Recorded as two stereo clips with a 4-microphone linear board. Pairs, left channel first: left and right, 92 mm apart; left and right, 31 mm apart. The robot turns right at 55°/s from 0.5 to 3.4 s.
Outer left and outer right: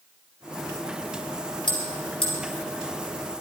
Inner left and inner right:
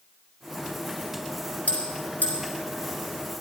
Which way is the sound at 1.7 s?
55° left (ahead or behind).